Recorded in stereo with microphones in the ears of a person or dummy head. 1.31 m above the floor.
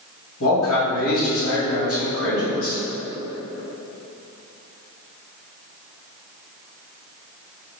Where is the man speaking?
85° left, 1.9 m.